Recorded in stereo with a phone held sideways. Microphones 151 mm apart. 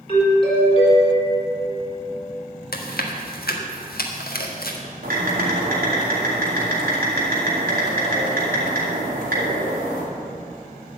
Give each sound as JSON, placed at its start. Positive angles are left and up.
{"t": 0.1, "sound": "a doorbell", "side_deg": 35, "distance_m": 4.5}
{"t": 2.7, "sound": "chewing", "side_deg": 80, "distance_m": 1.5}
{"t": 5.0, "sound": "typing on a keyboard", "side_deg": -70, "distance_m": 4.0}